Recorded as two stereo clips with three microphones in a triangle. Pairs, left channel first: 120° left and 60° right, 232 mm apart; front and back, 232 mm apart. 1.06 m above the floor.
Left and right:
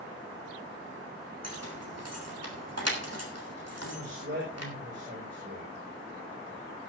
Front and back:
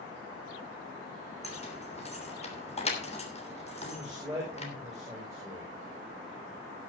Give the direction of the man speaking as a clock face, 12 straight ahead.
3 o'clock.